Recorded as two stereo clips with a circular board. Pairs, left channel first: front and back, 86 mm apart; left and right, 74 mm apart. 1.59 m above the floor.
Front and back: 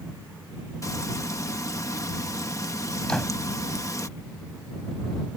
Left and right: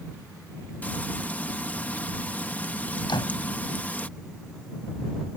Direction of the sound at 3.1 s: 80° left.